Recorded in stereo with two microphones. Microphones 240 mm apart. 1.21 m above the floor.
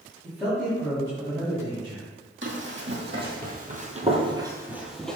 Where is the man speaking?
5° right (ahead or behind), 2.5 m; by 2.1 s 25° right (ahead or behind), 2.5 m.